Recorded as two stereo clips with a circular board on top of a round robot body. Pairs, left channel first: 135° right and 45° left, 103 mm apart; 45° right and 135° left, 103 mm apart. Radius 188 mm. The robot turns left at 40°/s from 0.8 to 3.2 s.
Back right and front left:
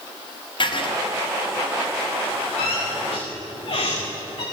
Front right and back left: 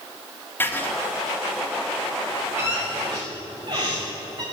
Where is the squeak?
155° right, 4 m; by 4.4 s straight behind, 4 m.